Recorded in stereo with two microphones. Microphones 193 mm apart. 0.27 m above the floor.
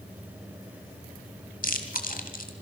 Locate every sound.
1.6 s chewing: 45° left (ahead or behind), 2 m